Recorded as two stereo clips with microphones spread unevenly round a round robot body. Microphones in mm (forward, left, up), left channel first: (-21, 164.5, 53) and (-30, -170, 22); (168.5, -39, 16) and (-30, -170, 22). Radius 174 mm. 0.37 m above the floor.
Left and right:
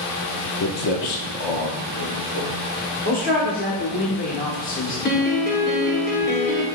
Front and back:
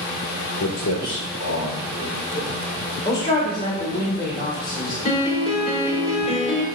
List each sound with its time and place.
0.6 s footsteps: 50° left, 0.7 m; by 4.0 s 100° left, 3 m
3.0 s a man speaking: 55° left, 1.0 m
5.0 s a piano: 60° left, 1.2 m